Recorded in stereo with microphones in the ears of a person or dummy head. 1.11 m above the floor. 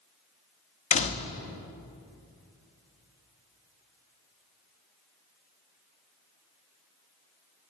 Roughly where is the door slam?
Left.